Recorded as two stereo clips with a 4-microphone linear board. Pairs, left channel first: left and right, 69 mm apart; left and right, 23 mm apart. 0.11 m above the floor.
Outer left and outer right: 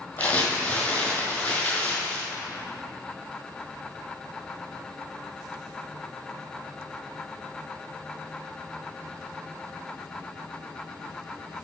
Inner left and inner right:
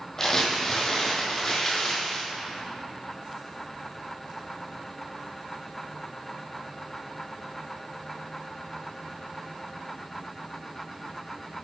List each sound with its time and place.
0.2 s crumpling: 25° left (ahead or behind), 2 m